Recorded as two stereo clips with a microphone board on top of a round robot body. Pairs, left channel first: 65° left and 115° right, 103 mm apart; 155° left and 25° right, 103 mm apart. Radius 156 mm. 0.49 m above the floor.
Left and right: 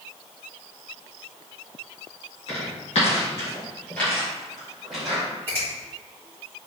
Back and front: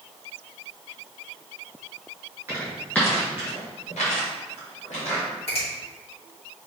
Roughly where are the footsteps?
Ahead left.